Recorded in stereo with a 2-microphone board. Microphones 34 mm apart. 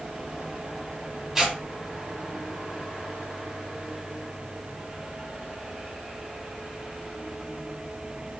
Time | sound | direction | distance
1.4 | tearing paper | 15° right (ahead or behind) | 1.3 m